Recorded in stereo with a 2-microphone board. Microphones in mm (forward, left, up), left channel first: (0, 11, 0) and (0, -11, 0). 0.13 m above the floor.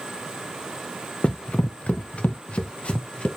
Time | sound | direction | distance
1.2 | running footsteps | 45° left (ahead or behind) | 0.6 m